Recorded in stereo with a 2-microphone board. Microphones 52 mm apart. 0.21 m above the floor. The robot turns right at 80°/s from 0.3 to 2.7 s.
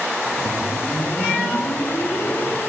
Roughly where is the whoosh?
Ahead.